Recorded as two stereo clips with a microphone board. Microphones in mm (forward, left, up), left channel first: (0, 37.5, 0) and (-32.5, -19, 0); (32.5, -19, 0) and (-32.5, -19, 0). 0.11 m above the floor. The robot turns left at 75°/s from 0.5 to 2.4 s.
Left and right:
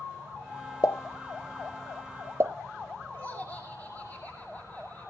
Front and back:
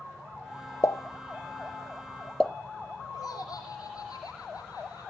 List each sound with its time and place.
0.8 s a pop: 40° left, 1.0 m; by 2.5 s 80° right, 1.0 m
3.1 s laughter: 5° right, 6 m